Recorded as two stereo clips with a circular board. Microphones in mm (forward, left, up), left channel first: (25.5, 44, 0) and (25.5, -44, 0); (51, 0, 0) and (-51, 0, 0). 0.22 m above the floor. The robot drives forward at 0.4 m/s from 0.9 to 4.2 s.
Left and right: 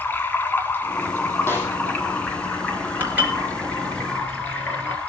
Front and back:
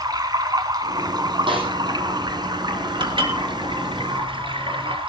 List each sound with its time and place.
0.0 s running water: 150° left, 2 m; by 5.1 s 165° left, 3 m
1.5 s a snare drum: 155° left, 8 m
3.0 s dishes clattering: 155° right, 2.5 m; by 5.0 s 160° right, 3 m